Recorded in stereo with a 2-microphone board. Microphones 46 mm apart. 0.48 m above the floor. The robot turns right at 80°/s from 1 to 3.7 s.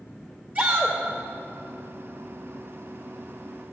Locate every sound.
0.6 s a shout: 35° right (ahead or behind), 2 m